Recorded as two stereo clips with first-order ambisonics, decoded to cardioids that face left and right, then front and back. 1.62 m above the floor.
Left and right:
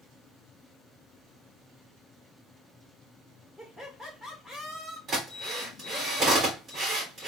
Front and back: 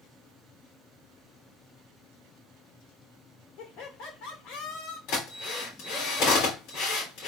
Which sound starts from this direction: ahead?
Laughter, at 3.6 s.